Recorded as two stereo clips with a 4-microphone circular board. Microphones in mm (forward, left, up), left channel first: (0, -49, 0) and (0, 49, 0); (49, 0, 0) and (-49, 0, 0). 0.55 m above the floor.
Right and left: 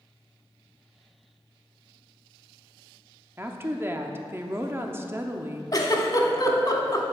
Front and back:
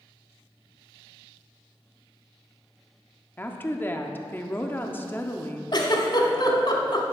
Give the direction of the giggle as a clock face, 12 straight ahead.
1 o'clock.